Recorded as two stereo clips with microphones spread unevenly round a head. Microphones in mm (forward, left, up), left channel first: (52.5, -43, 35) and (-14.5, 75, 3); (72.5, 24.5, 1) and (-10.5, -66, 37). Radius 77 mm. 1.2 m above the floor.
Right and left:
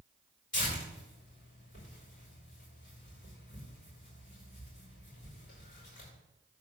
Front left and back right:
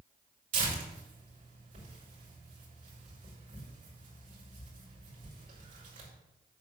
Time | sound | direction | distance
0.5 | tearing paper | 105° right | 5.5 m